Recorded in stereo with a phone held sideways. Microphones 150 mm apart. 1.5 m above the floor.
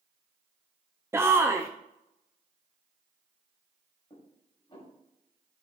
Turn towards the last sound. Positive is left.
turn(degrees=35)  # may be behind; listen again after turning